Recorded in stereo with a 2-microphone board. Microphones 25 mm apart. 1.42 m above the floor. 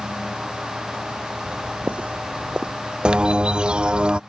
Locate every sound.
1.4 s footsteps: 55° right (ahead or behind); by 2.7 s 40° right (ahead or behind)
3.0 s a bird: 35° right (ahead or behind)